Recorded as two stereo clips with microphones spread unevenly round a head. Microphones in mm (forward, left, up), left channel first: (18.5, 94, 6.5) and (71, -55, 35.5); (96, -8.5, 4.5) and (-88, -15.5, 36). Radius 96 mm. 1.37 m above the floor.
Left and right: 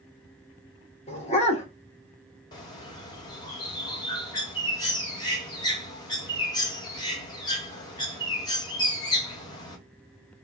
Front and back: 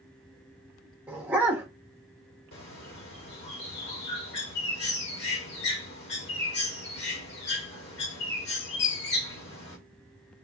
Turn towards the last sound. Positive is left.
turn(degrees=40)